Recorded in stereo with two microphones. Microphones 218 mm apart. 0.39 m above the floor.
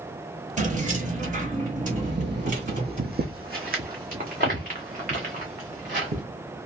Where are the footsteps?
55° right (ahead or behind), 0.6 m; by 6.2 s 35° right (ahead or behind), 2.5 m.